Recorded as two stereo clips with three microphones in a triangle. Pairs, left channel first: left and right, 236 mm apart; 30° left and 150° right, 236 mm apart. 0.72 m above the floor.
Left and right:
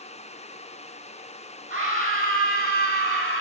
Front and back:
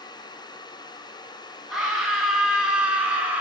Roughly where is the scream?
Ahead right.